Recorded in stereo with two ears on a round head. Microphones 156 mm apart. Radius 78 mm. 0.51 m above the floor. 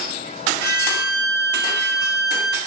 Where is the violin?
25° right (ahead or behind), 2.0 m.